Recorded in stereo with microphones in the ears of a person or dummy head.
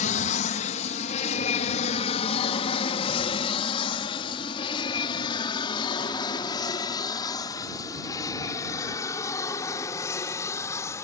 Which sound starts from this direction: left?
An aircraft, at 0.0 s.